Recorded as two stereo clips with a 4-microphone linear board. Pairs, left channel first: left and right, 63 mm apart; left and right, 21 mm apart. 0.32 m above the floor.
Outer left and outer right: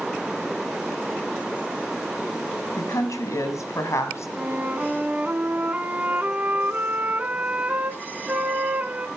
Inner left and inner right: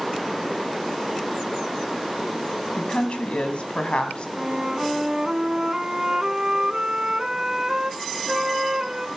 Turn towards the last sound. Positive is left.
turn(degrees=-30)  # may be behind; listen again after turning